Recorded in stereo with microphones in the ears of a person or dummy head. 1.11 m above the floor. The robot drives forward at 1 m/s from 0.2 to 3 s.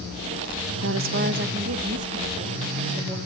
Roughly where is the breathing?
No breathing in this recording.